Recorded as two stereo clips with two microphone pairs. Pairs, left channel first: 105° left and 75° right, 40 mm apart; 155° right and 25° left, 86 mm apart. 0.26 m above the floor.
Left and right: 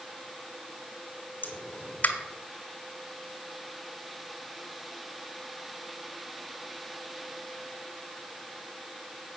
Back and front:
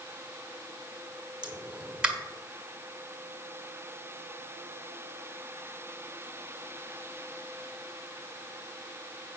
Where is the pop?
105° left, 1.6 m.